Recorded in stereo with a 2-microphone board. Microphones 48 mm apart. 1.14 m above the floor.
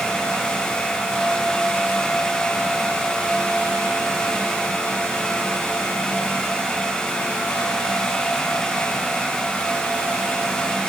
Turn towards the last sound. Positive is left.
No sound to turn to.